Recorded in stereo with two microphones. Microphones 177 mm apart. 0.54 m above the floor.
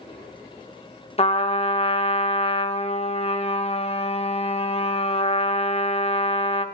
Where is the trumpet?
35° left (ahead or behind), 0.5 m.